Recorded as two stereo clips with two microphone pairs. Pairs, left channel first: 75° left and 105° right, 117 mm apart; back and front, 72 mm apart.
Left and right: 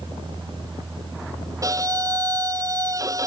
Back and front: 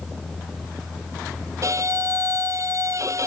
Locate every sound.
1.6 s a violin: 45° right